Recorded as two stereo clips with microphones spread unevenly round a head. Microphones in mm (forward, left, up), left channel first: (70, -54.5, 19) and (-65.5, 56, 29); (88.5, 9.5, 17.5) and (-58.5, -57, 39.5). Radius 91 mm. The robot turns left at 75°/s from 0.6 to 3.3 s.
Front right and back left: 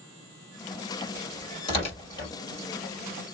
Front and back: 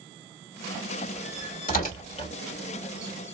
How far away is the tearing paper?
About 2 m.